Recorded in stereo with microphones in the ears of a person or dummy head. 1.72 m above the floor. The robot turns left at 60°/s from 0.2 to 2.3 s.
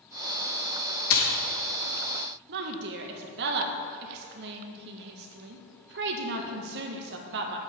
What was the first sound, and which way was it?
A splash, 70° left (ahead or behind).